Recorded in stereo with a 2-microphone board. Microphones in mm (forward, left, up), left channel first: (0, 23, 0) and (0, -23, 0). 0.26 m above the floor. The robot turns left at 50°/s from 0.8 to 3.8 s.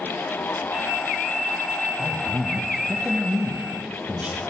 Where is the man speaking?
5° left, 1.1 m; by 4.4 s 90° right, 1.1 m.